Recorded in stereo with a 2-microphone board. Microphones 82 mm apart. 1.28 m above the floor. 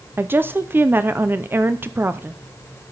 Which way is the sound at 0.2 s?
25° right (ahead or behind).